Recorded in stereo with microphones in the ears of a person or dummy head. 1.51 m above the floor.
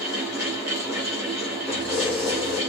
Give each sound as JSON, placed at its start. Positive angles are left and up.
{"t": 0.0, "sound": "a fan", "side_deg": -10, "distance_m": 1.8}
{"t": 1.7, "sound": "keys jangling", "side_deg": 0, "distance_m": 1.4}